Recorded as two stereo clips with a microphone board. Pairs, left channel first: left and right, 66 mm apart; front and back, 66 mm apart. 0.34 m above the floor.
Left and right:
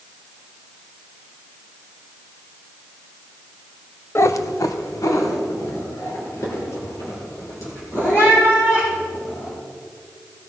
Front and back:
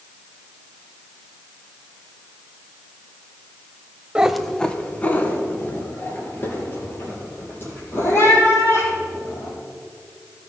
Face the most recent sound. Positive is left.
turn(degrees=50)